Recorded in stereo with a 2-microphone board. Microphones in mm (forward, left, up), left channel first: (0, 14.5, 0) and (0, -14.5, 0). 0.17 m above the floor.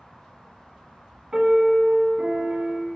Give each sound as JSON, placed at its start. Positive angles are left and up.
{"t": 1.3, "sound": "a piano", "side_deg": -25, "distance_m": 0.7}